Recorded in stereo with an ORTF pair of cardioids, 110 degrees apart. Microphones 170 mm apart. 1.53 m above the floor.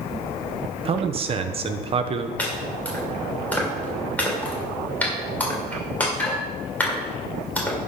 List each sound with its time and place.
0.8 s a man speaking: 35° right, 1.1 m
2.4 s chopping: 10° left, 3 m